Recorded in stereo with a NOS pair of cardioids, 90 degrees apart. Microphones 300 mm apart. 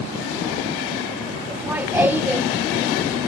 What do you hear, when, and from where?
1.5 s laughter: 5° right, 0.8 m